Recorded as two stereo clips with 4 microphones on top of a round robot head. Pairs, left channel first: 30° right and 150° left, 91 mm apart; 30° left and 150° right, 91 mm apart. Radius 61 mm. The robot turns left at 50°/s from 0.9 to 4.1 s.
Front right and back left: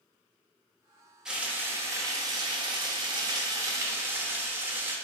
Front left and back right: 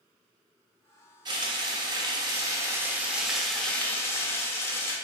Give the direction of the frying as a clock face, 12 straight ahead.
4 o'clock.